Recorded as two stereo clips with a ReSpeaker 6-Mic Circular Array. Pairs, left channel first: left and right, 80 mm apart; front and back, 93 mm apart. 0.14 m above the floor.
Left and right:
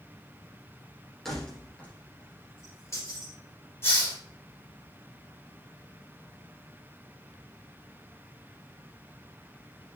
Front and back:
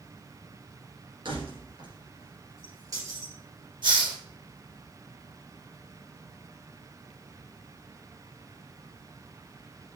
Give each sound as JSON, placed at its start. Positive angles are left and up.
{"t": 1.2, "sound": "keys jangling", "azimuth_deg": 175, "distance_m": 2.0}
{"t": 3.8, "sound": "a hiss", "azimuth_deg": 150, "distance_m": 3.0}